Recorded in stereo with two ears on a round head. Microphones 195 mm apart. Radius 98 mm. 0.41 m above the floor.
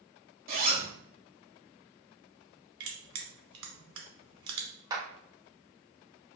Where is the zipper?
45° right (ahead or behind), 1.5 m.